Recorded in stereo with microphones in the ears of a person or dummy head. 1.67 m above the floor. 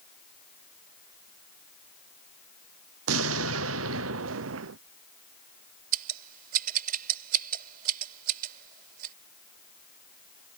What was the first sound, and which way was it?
An explosion, 85° right.